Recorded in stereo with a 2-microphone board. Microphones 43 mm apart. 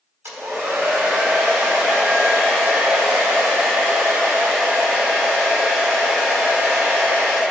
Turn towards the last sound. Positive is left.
turn(degrees=-75)  # may be behind; listen again after turning